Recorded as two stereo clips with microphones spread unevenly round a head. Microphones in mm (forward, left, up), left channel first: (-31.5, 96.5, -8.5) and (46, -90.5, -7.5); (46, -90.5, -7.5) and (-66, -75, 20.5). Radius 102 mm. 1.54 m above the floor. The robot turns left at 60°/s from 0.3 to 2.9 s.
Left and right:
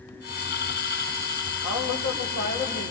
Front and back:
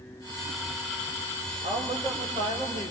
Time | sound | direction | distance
1.6 | a woman speaking | 120° left | 5.5 m